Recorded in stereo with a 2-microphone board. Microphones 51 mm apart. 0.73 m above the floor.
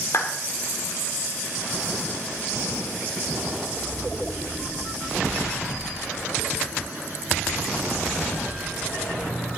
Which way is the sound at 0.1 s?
70° left (ahead or behind).